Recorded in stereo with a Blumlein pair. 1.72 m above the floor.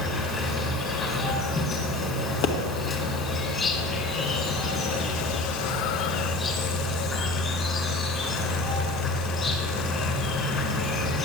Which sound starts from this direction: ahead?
An insect, at 0.0 s.